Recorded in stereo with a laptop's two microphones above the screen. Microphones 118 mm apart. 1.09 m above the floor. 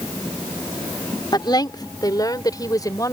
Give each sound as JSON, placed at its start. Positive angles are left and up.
{"t": 1.3, "sound": "a woman speaking", "side_deg": 35}